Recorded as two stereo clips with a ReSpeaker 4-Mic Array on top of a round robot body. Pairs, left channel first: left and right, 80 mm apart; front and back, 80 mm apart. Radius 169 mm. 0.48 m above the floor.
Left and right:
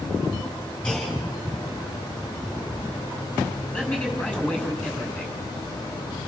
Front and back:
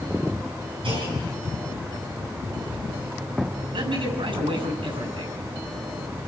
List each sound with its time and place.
0.8 s a clunk: 165° left, 6.5 m
3.7 s a man speaking: 160° left, 7 m